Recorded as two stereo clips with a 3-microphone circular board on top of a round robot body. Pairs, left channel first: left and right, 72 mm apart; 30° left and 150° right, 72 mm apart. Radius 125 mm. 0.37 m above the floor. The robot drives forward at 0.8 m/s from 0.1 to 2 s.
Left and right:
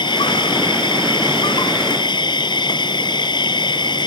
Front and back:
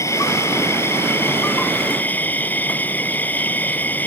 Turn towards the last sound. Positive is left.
turn(degrees=100)